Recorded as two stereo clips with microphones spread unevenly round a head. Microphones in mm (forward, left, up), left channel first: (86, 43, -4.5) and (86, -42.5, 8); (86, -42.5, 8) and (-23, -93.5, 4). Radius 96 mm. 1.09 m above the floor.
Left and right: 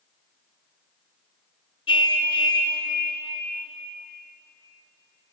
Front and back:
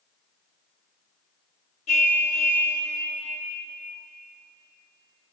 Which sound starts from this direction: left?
A car horn, at 1.9 s.